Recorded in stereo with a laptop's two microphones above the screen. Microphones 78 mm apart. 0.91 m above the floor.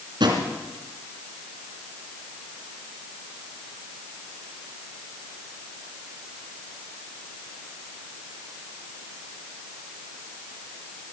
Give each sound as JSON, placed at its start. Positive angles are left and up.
{"t": 0.2, "sound": "a drawer", "side_deg": -80, "distance_m": 3.0}